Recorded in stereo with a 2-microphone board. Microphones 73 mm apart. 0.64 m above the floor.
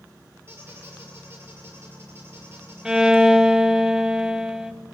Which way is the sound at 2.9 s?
10° right (ahead or behind).